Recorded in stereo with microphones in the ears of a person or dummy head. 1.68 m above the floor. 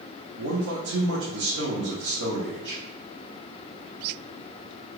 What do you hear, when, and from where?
0.4 s a man speaking: 75° right (ahead or behind), 0.7 m